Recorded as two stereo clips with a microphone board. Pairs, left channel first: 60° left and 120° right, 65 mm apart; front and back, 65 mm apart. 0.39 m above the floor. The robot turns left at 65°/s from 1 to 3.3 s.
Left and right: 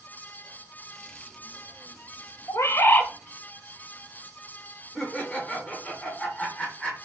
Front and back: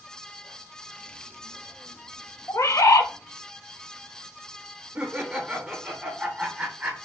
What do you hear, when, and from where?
2.5 s a bird: 35° left, 0.6 m; by 3.1 s 5° right, 0.6 m
5.0 s laughter: 125° left, 0.8 m